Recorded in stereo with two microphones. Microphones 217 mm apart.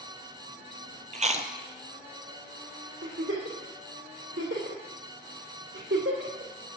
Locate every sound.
1.1 s chewing: 35° right (ahead or behind), 0.8 m
3.0 s a giggle: 65° right (ahead or behind), 3 m